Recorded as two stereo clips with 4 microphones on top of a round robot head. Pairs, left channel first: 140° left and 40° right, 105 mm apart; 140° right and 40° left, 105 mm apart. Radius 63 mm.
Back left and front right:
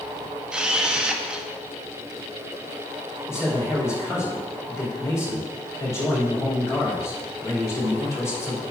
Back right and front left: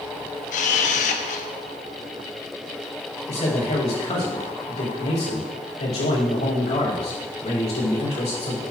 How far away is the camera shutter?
About 0.9 m.